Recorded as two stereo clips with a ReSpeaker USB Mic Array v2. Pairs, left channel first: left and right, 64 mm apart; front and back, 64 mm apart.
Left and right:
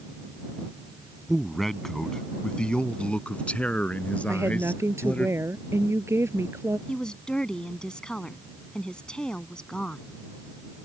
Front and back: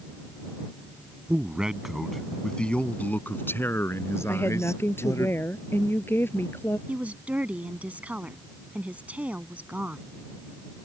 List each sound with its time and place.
1.3 s a man speaking: straight behind; by 5.3 s 25° left
4.3 s a woman speaking: 50° right
6.9 s a woman speaking: 150° left